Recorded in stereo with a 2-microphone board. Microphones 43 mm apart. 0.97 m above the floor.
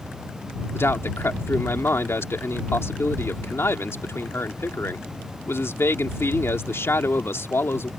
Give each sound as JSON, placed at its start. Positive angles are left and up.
{"t": 0.7, "sound": "a man speaking", "side_deg": 75}